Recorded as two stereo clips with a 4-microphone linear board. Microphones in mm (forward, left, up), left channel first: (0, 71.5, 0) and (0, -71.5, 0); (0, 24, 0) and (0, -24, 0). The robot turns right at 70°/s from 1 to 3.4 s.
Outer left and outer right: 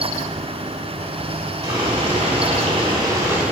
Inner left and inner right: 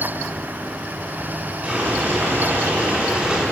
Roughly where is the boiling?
Behind right.